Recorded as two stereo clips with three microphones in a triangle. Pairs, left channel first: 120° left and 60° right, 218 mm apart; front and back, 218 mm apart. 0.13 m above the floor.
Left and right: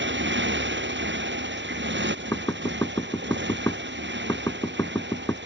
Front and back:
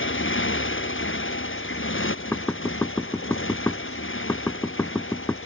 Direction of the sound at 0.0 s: 25° right.